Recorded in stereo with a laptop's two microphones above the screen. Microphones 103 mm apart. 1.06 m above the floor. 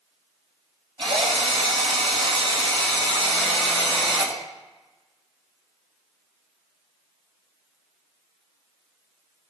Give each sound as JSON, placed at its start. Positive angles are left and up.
{"t": 1.0, "sound": "a drill", "side_deg": -60, "distance_m": 3.0}